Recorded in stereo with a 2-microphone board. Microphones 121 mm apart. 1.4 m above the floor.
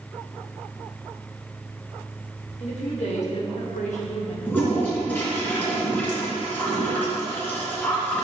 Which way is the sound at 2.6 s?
65° left (ahead or behind).